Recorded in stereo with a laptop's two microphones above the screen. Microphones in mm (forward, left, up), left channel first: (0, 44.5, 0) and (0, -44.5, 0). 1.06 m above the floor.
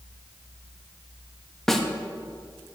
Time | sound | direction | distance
1.7 | a snare drum | 5° left (ahead or behind) | 0.9 m